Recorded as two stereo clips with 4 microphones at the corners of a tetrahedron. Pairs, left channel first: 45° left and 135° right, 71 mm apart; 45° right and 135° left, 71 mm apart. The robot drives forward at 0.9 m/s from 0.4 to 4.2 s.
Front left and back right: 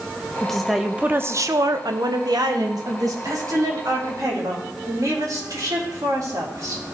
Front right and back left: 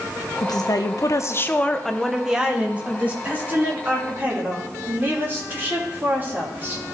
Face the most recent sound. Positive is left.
turn(degrees=-165)